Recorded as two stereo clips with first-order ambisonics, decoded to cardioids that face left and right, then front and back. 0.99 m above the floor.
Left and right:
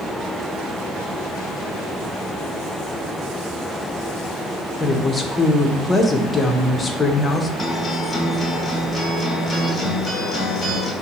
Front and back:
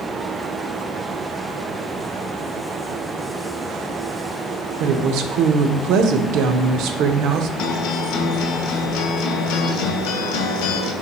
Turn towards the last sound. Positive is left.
turn(degrees=10)